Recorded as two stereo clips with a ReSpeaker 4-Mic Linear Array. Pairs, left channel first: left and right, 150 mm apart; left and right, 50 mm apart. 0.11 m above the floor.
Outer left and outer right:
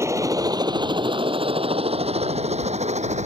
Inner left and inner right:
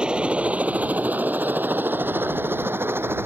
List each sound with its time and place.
0.0 s a helicopter: 20° right (ahead or behind); by 3.3 s 50° right (ahead or behind)